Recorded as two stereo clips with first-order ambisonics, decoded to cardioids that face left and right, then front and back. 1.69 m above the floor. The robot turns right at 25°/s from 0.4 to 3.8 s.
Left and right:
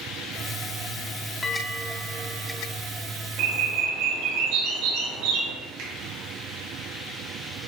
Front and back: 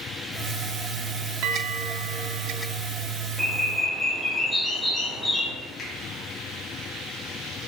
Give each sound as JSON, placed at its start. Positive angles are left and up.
{"t": 1.4, "sound": "a bell", "azimuth_deg": 165, "distance_m": 0.9}
{"t": 3.4, "sound": "a bird", "azimuth_deg": -95, "distance_m": 3.0}
{"t": 5.8, "sound": "a finger snap", "azimuth_deg": -60, "distance_m": 3.0}